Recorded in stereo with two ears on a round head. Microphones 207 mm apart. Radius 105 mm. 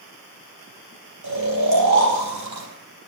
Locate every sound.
1.2 s snoring: 85° right, 4 m